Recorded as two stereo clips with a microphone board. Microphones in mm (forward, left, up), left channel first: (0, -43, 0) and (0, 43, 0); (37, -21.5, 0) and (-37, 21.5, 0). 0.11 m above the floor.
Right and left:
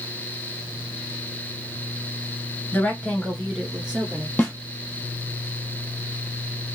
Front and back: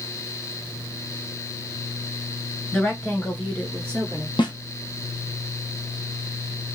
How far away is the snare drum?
About 1.1 m.